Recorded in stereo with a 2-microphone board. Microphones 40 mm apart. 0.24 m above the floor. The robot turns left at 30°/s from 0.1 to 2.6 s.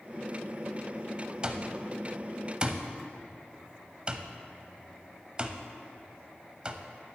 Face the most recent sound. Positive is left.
turn(degrees=-25)  # may be behind; listen again after turning